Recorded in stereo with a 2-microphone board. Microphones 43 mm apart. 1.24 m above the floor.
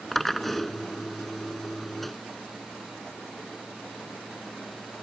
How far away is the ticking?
No ticking in this recording.